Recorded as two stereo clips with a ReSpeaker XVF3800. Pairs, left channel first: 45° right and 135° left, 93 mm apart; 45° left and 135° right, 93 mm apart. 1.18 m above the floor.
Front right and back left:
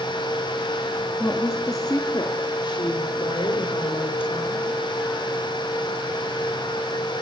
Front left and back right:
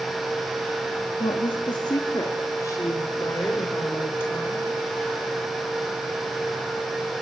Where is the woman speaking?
25° left, 1.6 m; by 4.7 s 25° right, 4.5 m.